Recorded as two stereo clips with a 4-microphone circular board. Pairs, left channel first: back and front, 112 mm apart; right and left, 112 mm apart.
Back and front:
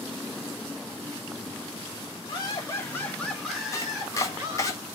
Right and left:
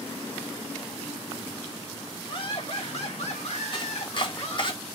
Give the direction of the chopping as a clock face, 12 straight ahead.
4 o'clock.